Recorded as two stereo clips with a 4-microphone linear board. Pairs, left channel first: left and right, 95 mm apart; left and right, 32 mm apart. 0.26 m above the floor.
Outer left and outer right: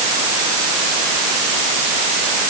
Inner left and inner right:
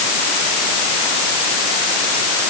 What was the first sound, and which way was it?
Only background noise.